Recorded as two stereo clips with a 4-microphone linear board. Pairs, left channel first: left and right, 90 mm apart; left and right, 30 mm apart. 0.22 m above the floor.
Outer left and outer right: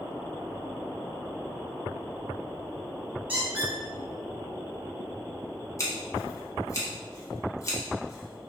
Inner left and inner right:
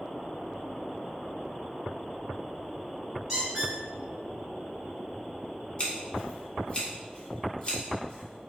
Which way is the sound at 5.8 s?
35° left (ahead or behind).